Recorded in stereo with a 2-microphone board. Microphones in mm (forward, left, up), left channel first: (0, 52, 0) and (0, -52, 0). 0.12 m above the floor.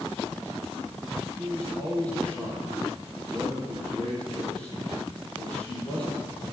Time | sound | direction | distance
1.4 | a man speaking | 10° left (ahead or behind) | 4.5 m